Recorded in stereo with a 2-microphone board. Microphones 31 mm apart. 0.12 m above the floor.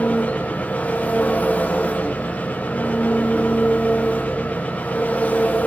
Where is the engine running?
55° left (ahead or behind), 6 m.